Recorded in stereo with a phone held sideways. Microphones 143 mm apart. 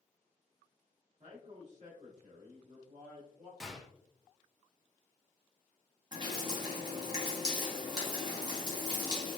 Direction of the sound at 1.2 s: 45° right (ahead or behind).